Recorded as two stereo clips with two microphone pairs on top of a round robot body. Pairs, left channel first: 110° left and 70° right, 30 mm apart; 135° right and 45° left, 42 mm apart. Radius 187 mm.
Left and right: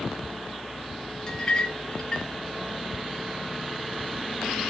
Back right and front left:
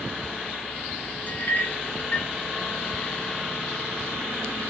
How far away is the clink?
About 0.7 m.